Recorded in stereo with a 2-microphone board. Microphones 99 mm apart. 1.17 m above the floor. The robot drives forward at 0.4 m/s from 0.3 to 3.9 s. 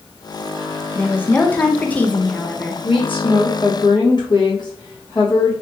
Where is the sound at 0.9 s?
15° left (ahead or behind), 0.5 m; by 2.7 s 10° left (ahead or behind), 0.8 m.